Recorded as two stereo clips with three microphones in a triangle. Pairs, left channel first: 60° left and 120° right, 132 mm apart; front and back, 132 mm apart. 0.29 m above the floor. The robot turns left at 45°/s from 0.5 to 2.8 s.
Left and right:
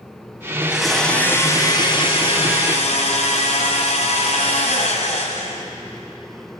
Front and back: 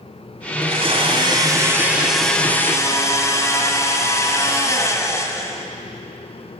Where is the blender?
160° left, 1.7 m; by 5.7 s 65° left, 1.7 m.